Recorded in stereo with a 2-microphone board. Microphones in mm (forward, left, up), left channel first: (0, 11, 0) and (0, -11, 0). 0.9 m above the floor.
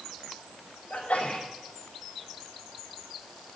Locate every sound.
0.9 s a sneeze: 85° left, 4 m